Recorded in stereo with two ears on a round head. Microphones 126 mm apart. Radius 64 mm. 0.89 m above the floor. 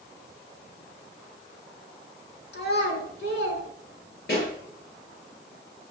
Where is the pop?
85° left, 7.5 m.